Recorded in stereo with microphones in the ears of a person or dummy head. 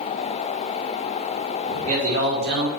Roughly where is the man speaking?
Right.